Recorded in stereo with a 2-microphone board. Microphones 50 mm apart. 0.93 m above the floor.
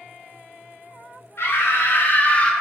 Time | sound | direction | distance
1.4 | a scream | 65° left (ahead or behind) | 1.2 m